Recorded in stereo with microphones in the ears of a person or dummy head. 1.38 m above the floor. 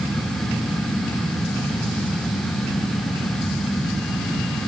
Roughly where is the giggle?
I don't hear a giggle.